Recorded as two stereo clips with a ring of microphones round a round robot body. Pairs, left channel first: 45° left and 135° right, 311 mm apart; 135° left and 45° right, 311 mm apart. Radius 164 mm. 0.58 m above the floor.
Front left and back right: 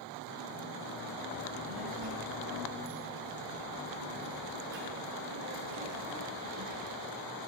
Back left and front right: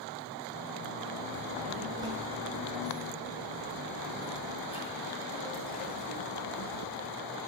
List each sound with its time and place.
1.3 s a child speaking: 115° right, 7 m; by 7.1 s 170° right, 8 m